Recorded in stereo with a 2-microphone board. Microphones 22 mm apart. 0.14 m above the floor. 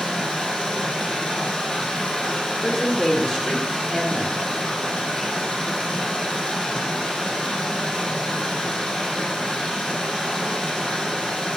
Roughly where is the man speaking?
Left.